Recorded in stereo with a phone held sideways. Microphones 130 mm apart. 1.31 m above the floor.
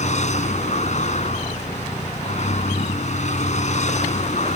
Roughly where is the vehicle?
Left.